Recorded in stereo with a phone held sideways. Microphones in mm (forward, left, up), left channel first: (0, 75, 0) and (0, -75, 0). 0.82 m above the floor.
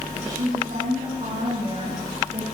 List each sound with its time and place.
0.1 s a woman speaking: 55° right (ahead or behind), 7.5 m; by 2.5 s 65° right (ahead or behind), 9 m